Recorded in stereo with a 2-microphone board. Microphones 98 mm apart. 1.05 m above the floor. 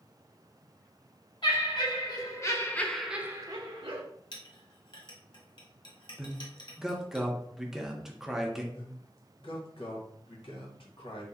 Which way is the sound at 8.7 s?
65° left (ahead or behind).